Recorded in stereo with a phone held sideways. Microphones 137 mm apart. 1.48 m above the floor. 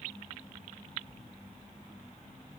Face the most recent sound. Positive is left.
No sound to turn to.